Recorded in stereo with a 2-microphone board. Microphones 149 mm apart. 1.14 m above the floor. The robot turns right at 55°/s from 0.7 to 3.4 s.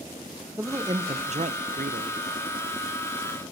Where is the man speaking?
160° right, 0.5 m; by 2.2 s 75° right, 0.5 m.